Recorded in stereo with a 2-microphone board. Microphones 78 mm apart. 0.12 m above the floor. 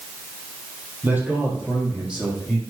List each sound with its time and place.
1.0 s a man speaking: 20° right (ahead or behind), 4 m; by 2.6 s 5° right (ahead or behind), 6 m